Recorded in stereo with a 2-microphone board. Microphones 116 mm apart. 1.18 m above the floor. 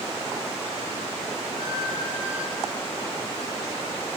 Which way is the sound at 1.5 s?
5° left (ahead or behind).